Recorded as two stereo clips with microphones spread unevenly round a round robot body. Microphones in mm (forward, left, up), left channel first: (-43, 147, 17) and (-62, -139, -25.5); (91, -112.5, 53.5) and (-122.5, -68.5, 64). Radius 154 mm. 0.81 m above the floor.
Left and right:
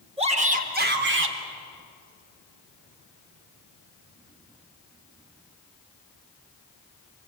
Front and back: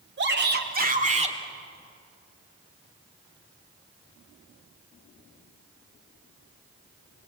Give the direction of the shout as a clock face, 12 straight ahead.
5 o'clock.